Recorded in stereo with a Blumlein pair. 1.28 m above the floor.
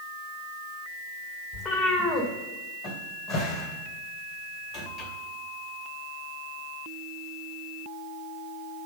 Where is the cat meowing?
20° left, 2.5 m.